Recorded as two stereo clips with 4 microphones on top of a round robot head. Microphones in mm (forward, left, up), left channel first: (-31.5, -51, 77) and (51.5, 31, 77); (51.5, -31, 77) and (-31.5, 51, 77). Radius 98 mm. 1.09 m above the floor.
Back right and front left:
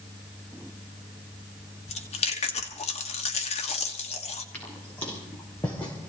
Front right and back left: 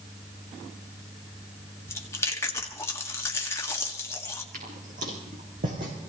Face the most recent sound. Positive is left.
turn(degrees=150)